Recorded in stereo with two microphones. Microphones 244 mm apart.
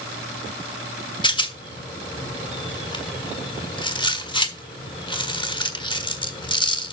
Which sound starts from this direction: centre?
A rattle, at 1.2 s.